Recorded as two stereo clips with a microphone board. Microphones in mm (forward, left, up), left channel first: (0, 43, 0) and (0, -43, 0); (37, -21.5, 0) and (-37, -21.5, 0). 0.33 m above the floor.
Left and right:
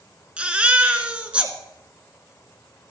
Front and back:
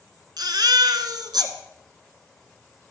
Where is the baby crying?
165° right, 1.5 m.